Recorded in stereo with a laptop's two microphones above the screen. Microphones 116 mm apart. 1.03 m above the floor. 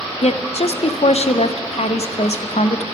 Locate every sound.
0.2 s a woman speaking: 65° left (ahead or behind), 0.6 m